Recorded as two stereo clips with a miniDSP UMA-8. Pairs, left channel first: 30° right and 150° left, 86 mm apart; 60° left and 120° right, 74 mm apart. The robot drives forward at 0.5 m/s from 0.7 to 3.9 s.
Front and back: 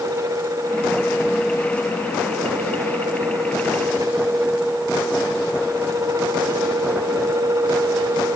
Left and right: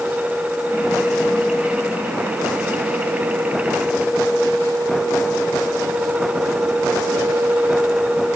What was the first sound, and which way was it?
Only background noise.